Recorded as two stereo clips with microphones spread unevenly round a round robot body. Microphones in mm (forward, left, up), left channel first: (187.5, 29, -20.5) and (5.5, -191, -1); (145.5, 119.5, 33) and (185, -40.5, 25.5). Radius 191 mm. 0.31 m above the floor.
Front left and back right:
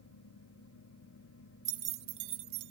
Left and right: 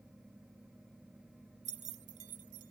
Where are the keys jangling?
95° right; by 2.7 s 125° right.